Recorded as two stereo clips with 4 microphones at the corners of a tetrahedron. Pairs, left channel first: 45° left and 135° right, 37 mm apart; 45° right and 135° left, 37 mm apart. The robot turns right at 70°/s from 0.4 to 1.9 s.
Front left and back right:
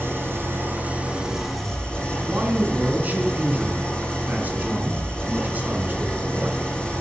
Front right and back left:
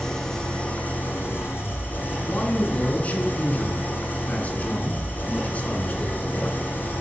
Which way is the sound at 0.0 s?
125° right.